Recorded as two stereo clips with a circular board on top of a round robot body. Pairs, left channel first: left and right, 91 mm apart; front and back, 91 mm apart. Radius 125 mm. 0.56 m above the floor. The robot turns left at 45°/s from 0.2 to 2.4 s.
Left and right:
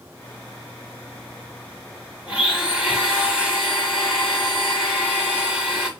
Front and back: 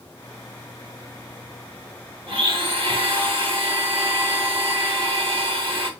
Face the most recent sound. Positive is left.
turn(degrees=-175)